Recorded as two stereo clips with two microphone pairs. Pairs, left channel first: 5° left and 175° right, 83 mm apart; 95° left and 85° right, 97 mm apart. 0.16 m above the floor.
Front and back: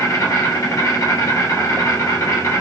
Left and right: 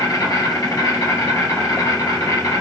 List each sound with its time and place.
0.0 s an insect: 50° left, 1.4 m